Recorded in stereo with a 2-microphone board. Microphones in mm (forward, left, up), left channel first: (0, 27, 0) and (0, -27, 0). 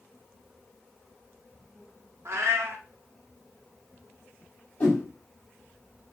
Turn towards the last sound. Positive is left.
turn(degrees=30)  # may be behind; listen again after turning